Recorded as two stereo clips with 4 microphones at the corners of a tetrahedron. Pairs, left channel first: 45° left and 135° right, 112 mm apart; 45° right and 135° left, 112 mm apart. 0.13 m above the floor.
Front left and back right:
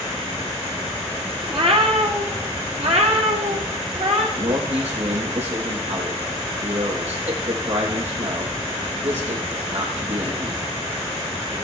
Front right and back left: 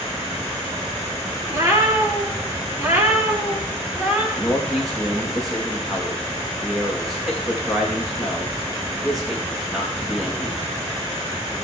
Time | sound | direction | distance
1.5 | a cat meowing | 160° right | 6 m
4.3 | a man speaking | 135° right | 5 m